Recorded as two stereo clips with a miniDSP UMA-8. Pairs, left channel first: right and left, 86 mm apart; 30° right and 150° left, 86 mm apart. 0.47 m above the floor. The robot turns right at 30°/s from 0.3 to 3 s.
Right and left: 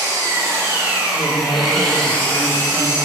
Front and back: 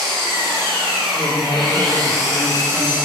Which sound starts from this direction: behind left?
An engine running, at 0.0 s.